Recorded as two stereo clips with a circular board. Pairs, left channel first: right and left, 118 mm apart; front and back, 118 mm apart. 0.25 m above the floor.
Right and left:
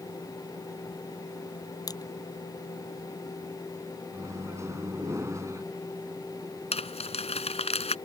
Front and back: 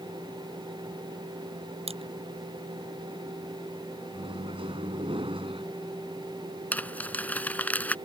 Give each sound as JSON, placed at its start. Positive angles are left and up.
{"t": 1.9, "sound": "crushing", "azimuth_deg": -145}
{"t": 4.1, "sound": "a microwave", "azimuth_deg": 150}
{"t": 6.7, "sound": "crumpling", "azimuth_deg": -75}